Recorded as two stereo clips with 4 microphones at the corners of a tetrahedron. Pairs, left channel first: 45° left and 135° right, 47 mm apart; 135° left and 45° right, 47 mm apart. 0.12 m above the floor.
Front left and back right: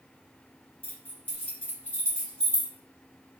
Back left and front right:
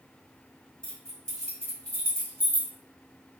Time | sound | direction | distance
0.8 | keys jangling | 65° left | 1.7 m